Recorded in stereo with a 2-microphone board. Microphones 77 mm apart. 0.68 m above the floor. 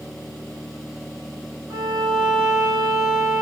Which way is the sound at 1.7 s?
65° right (ahead or behind).